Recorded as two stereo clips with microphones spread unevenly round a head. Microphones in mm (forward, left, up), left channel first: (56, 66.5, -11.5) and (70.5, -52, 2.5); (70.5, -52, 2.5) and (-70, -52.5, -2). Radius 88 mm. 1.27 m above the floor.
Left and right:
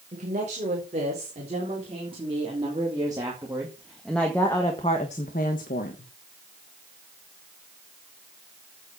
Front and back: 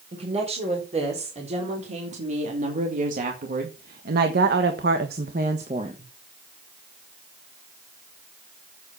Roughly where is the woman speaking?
Behind right.